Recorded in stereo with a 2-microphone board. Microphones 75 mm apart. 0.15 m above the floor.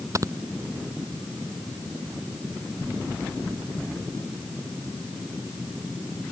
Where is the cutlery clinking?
I don't hear cutlery clinking.